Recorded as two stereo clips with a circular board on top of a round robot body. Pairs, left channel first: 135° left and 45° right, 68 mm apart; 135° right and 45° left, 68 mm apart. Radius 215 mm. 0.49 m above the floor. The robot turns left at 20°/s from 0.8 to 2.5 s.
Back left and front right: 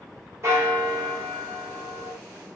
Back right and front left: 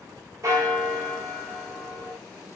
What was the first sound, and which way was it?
A bell, straight ahead.